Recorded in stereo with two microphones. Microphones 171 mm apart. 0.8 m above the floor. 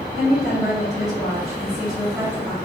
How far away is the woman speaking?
About 1.0 m.